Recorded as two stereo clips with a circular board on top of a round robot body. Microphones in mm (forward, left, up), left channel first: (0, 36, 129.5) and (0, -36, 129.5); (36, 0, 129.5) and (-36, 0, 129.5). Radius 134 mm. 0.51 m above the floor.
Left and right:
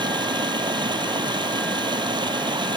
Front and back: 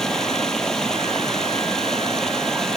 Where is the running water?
80° right.